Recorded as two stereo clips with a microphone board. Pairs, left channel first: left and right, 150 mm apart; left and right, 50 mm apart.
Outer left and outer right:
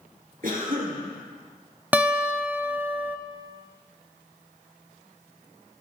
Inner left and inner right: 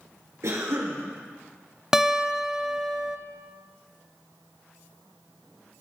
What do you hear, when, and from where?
0.4 s a cough: 70° right (ahead or behind), 3.5 m
1.9 s a guitar: 10° right (ahead or behind), 0.7 m